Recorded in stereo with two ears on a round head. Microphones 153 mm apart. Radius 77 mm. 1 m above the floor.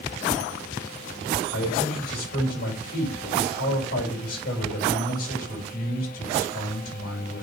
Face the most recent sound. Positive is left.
turn(degrees=55)  # may be behind; listen again after turning